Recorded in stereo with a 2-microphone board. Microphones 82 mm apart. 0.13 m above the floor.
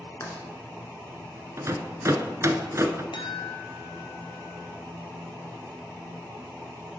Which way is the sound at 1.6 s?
35° right (ahead or behind).